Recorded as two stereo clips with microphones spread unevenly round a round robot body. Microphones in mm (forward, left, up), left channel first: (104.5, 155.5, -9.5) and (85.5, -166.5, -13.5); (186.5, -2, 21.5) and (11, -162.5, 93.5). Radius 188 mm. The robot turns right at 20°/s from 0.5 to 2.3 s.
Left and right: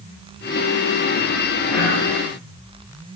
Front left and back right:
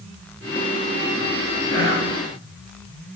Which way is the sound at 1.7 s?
75° left.